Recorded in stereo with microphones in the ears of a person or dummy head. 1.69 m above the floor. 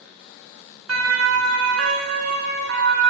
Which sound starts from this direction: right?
A siren, at 0.9 s.